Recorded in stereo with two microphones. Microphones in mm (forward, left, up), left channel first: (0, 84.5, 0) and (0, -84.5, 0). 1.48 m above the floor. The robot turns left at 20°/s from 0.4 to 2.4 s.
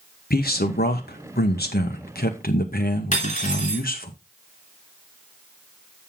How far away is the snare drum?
No snare drum in this recording.